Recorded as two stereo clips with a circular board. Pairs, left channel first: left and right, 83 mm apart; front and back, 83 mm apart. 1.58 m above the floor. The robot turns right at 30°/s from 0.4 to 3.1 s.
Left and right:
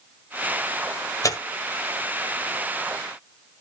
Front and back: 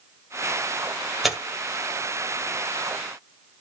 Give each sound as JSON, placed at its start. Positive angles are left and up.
{"t": 1.2, "sound": "tearing paper", "azimuth_deg": 90, "distance_m": 1.7}